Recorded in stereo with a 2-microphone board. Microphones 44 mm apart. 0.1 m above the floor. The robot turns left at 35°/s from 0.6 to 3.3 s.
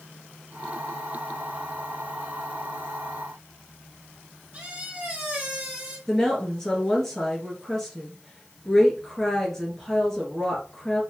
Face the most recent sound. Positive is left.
turn(degrees=10)  # may be behind; listen again after turning